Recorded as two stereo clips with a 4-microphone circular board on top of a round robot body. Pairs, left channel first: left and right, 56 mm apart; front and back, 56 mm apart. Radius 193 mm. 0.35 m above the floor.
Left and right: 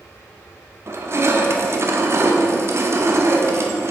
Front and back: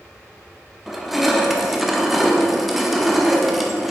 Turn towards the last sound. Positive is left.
turn(degrees=-95)